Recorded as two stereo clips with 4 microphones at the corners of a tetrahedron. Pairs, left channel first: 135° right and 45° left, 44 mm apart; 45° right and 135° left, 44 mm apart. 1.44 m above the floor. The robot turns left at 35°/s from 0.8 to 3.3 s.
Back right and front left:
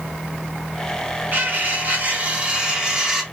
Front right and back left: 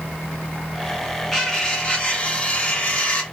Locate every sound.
1.3 s cutlery clinking: 35° left, 0.9 m; by 3.2 s 30° right, 0.9 m